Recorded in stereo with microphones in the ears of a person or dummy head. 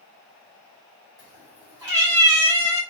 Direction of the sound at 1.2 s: 15° right (ahead or behind).